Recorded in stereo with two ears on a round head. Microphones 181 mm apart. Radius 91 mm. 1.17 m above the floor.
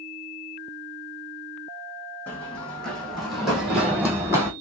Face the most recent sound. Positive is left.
turn(degrees=-15)  # may be behind; listen again after turning